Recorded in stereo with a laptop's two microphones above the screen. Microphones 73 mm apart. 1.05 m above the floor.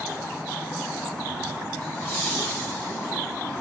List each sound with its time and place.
1.8 s laughter: 30° left (ahead or behind), 6 m